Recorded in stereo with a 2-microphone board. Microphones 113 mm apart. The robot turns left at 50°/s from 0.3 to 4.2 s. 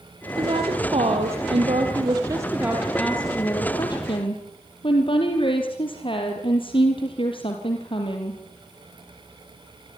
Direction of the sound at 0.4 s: 50° right.